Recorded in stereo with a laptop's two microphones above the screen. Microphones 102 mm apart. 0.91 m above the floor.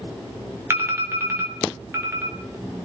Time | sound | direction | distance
0.7 | an alarm | 25° right (ahead or behind) | 1.6 m